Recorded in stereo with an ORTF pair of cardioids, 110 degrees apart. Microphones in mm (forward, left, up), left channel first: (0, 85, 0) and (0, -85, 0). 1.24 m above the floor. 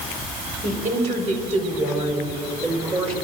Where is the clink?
I don't hear a clink.